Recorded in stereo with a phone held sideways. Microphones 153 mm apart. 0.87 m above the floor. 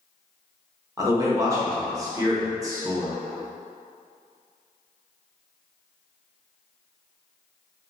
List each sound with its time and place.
1.0 s a man speaking: 25° right (ahead or behind), 0.9 m